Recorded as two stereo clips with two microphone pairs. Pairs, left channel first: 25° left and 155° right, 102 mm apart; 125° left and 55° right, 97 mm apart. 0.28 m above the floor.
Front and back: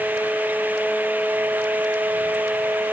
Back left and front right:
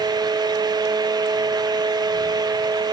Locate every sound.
Only background noise.